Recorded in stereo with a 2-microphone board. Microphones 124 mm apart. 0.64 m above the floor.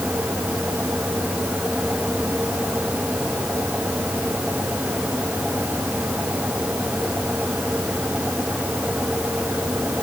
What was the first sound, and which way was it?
Only background noise.